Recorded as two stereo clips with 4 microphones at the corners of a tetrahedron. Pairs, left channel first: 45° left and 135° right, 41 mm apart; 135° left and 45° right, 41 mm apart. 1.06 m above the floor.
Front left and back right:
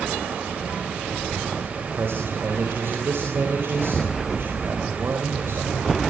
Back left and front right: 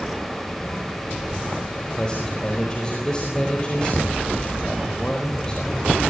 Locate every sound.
1.8 s a man speaking: 160° right, 4 m